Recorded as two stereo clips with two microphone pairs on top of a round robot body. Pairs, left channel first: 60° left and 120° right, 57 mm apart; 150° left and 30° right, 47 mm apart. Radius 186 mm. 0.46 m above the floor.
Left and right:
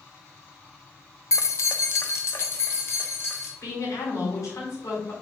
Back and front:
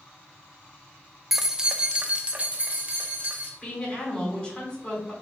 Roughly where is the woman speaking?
Left.